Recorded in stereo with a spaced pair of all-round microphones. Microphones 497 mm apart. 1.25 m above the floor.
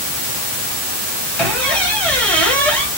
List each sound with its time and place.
1.4 s a squeak: 5° left (ahead or behind), 1.0 m